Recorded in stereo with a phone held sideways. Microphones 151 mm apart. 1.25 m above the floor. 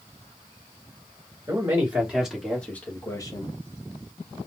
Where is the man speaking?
20° right (ahead or behind), 1.7 m; by 3.6 s 35° left (ahead or behind), 1.2 m.